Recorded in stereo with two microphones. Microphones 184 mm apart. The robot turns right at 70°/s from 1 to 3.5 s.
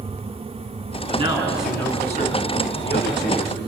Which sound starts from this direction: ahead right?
A man speaking, at 1.1 s.